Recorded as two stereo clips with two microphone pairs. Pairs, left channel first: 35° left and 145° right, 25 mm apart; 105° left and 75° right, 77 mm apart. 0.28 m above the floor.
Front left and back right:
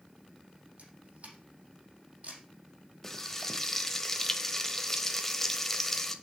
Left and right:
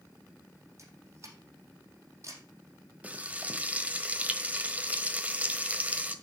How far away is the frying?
About 1.2 m.